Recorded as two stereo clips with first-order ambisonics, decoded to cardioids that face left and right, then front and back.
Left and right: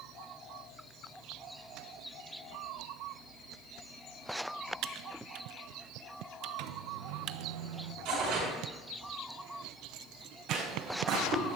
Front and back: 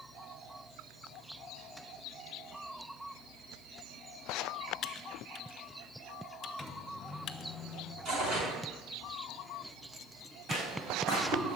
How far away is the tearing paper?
About 6 m.